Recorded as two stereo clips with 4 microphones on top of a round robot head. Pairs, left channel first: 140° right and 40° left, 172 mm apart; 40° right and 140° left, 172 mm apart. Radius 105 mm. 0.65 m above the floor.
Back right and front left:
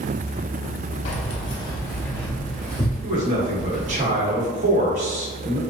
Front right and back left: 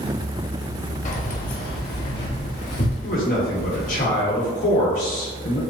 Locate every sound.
1.1 s keys jangling: 90° right, 0.8 m; by 4.0 s 45° right, 2 m
3.0 s a man speaking: 5° right, 1.3 m